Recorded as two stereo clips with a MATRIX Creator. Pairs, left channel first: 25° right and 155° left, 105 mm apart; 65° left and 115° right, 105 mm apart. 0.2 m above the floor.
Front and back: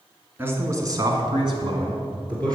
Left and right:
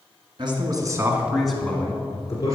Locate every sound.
0.4 s a man speaking: 135° right, 1.9 m; by 2.6 s 115° left, 2.5 m